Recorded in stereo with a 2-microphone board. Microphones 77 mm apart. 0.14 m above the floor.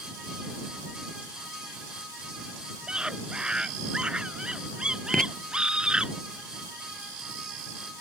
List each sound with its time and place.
2.9 s a scream: 10° right (ahead or behind)
5.1 s writing: 10° left (ahead or behind)